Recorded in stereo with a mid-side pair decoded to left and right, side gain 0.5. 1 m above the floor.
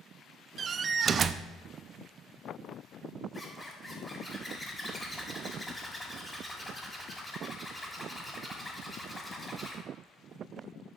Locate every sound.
0.6 s a door slam: 45° right, 0.6 m
3.3 s a zipper: 10° left, 5.5 m